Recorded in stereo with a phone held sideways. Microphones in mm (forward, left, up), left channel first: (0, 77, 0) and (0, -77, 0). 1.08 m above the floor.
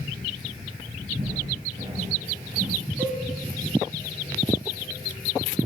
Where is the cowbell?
10° right (ahead or behind), 1.3 m.